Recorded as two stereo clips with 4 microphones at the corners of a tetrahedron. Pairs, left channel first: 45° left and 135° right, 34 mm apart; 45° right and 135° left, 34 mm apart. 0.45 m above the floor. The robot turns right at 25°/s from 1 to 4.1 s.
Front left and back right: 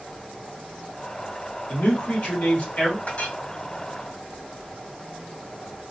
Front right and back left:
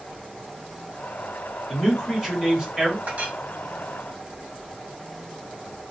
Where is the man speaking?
45° left, 1.8 m; by 3.0 s 80° left, 1.8 m.